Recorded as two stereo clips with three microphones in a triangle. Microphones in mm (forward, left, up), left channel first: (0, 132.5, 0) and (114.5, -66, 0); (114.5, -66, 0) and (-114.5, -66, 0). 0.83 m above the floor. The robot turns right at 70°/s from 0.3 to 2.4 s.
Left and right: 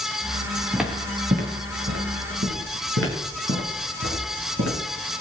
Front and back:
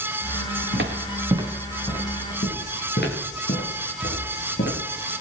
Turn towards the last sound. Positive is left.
turn(degrees=-45)